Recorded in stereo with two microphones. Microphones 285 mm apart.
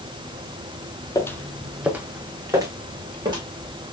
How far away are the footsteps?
About 0.8 m.